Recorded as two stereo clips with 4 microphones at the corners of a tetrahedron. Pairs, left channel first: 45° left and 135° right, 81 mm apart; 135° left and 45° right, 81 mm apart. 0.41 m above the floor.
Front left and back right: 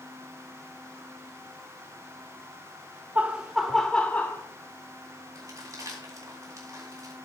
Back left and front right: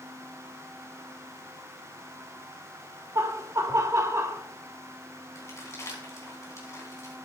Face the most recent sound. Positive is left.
turn(degrees=-175)